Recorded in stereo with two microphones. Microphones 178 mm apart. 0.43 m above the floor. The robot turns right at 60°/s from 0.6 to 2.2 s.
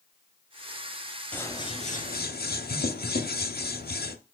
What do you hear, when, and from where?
1.3 s scissors: 10° left, 0.7 m; by 4.2 s 60° left, 0.7 m